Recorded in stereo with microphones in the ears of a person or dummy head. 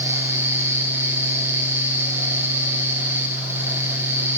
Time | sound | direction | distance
0.0 | a fan | 10° right (ahead or behind) | 1.2 m